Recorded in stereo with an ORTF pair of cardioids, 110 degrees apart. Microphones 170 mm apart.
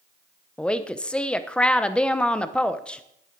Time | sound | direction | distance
0.6 | a woman speaking | 5° left | 0.8 m